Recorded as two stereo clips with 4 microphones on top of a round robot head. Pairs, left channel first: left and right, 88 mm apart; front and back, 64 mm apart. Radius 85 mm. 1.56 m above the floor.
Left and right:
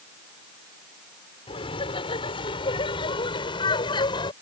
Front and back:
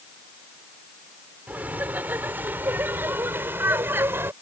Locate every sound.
1.5 s laughter: 115° left; by 4.3 s 125° left